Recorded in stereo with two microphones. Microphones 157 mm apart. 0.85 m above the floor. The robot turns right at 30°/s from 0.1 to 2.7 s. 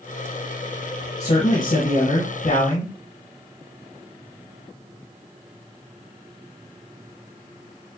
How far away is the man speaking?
About 1.3 m.